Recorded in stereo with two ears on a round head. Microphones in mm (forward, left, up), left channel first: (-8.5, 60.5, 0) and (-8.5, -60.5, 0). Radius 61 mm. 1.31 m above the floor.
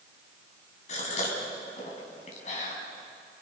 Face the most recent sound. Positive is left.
turn(degrees=60)  # may be behind; listen again after turning